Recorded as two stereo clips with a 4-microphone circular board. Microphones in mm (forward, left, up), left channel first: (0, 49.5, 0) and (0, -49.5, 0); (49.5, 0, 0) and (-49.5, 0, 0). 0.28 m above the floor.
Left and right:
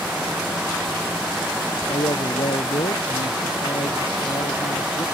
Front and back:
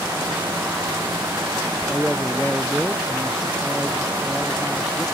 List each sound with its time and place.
1.9 s a man speaking: 80° left